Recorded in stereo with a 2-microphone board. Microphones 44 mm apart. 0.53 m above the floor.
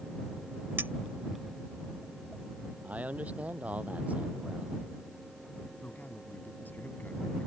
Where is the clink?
55° right (ahead or behind).